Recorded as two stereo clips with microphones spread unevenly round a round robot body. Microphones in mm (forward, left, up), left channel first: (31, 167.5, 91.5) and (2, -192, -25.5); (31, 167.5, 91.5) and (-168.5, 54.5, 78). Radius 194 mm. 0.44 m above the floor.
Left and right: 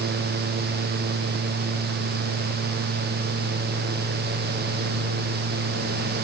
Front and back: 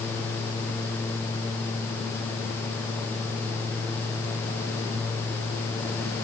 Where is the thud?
No thud in this recording.